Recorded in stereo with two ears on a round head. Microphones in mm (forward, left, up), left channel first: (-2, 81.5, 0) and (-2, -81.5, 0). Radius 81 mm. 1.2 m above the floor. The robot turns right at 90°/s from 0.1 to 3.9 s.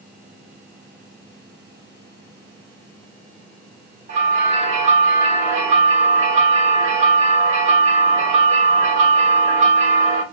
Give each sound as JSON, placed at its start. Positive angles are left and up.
{"t": 4.1, "sound": "a bell", "side_deg": -40, "distance_m": 1.3}